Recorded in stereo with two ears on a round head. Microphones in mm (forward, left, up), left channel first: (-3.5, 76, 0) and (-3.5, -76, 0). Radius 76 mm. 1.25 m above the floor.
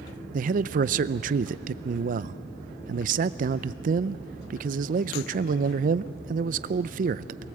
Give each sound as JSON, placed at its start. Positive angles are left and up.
{"t": 0.3, "sound": "a man speaking", "side_deg": -50, "distance_m": 0.5}